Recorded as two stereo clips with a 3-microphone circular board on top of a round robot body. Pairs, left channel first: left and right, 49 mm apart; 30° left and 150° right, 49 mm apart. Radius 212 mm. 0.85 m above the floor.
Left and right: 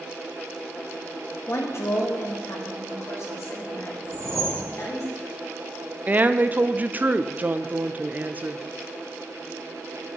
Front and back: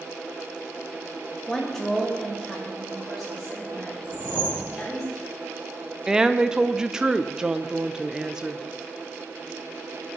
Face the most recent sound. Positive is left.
turn(degrees=-85)